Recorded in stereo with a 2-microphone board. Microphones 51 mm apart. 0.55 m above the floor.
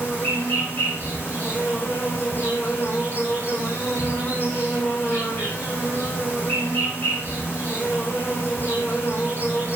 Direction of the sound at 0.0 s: 35° left (ahead or behind).